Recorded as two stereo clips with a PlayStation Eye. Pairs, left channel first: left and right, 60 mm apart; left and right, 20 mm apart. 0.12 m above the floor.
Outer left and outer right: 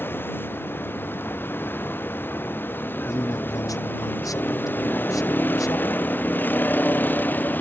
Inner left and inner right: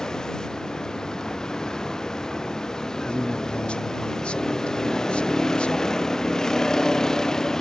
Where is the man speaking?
75° left (ahead or behind).